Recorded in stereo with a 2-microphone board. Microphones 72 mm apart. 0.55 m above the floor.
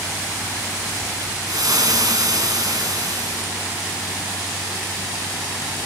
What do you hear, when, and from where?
1.5 s frying: 60° right (ahead or behind), 2 m